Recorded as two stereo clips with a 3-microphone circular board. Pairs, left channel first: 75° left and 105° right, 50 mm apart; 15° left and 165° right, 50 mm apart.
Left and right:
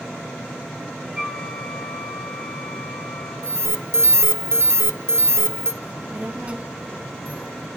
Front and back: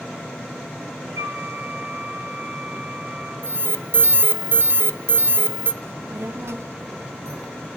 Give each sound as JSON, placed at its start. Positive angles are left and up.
{"t": 1.1, "sound": "a flute", "azimuth_deg": 175, "distance_m": 8.0}
{"t": 3.4, "sound": "an alarm", "azimuth_deg": -130, "distance_m": 0.8}
{"t": 5.8, "sound": "a child speaking", "azimuth_deg": -165, "distance_m": 1.1}